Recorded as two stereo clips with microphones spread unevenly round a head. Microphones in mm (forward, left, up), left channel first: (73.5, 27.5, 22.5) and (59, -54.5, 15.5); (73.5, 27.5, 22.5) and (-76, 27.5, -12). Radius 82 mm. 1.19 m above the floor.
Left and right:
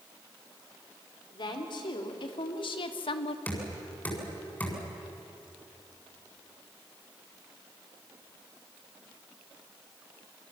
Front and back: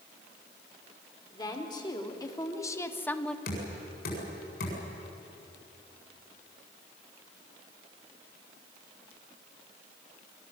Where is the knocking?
10° left, 7.5 m.